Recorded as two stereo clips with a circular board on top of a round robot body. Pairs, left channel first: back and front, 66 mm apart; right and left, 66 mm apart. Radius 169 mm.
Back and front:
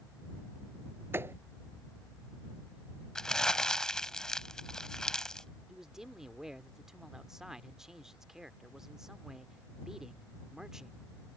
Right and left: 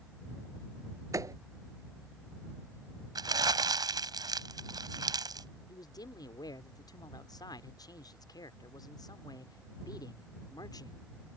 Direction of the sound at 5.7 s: 80° right.